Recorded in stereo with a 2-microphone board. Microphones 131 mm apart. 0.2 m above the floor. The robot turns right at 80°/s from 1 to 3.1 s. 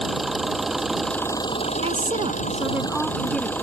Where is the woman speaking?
95° right; by 3.5 s 5° left.